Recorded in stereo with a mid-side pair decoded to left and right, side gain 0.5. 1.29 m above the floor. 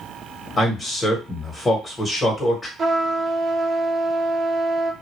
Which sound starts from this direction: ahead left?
A man speaking, at 0.6 s.